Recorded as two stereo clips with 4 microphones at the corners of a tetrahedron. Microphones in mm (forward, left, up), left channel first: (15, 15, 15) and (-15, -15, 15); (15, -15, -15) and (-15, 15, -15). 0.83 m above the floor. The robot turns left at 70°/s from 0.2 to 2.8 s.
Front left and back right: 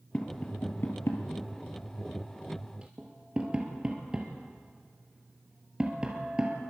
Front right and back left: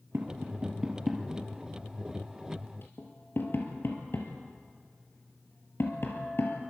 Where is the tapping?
110° left, 2.5 m; by 6.6 s 70° right, 2.5 m.